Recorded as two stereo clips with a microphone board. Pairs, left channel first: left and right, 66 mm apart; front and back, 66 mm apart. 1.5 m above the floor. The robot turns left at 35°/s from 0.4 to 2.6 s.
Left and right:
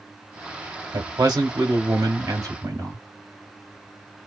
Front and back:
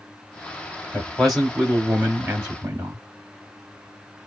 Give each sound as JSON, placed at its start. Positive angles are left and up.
{"t": 0.9, "sound": "a man speaking", "azimuth_deg": -75, "distance_m": 2.0}